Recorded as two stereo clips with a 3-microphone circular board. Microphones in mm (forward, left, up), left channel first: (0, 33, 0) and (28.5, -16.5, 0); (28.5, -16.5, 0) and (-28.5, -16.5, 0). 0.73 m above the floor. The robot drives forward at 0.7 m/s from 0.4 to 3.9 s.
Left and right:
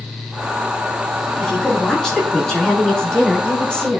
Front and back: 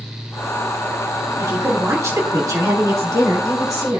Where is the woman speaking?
155° right, 4 m; by 4.0 s 165° right, 5.5 m.